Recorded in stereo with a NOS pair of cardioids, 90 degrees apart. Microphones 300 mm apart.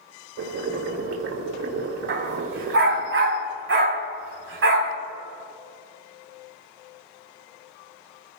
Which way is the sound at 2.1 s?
45° right.